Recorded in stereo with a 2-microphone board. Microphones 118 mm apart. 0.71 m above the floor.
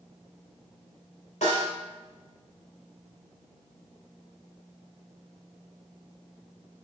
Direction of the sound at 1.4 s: 75° left (ahead or behind).